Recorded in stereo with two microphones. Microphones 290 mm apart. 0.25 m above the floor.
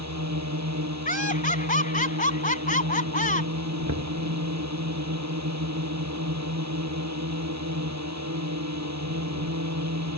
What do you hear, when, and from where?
0.0 s a drone: 70° right (ahead or behind)
1.1 s laughter: 30° left (ahead or behind)
3.9 s knocking: 75° right (ahead or behind)